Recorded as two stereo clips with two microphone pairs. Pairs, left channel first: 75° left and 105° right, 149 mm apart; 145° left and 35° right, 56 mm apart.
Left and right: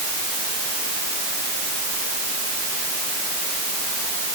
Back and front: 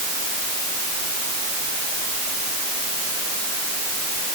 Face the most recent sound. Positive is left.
No sound to turn to.